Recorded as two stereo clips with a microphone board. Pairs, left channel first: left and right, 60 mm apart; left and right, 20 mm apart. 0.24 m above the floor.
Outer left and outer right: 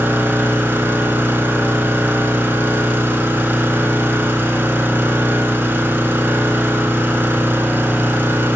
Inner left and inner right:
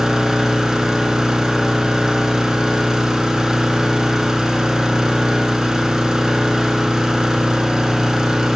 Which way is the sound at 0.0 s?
35° right (ahead or behind).